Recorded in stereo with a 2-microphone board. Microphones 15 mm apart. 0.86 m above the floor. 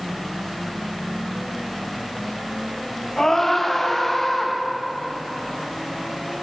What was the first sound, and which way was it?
A scream, 30° left (ahead or behind).